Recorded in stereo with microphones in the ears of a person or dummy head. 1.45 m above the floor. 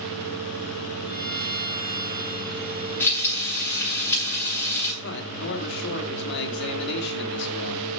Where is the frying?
10° left (ahead or behind), 7 m.